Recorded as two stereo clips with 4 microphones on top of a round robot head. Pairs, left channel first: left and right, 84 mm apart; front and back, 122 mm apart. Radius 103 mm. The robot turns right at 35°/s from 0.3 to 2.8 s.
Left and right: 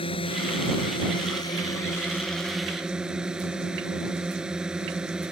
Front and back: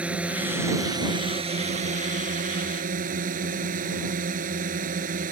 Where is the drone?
100° left; by 5.3 s 175° right.